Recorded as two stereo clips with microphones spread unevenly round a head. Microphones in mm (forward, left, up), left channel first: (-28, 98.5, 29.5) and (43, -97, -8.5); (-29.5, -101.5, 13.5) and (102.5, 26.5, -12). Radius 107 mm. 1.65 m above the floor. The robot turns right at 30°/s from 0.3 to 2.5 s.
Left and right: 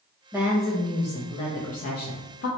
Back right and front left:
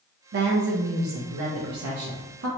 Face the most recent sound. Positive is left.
turn(degrees=80)